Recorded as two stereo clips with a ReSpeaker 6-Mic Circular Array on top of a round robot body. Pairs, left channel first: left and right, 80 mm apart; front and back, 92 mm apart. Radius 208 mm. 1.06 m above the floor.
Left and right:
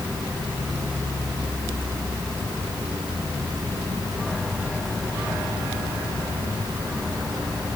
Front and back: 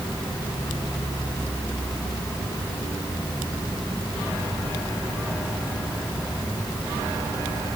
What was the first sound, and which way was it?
Only background noise.